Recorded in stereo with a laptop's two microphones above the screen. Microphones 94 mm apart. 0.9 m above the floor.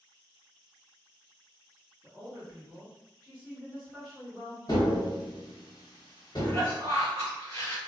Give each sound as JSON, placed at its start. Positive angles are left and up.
{"t": 2.0, "sound": "a woman speaking", "side_deg": -35, "distance_m": 1.8}
{"t": 4.7, "sound": "tapping", "side_deg": 50, "distance_m": 1.3}
{"t": 6.4, "sound": "a cough", "side_deg": 30, "distance_m": 1.5}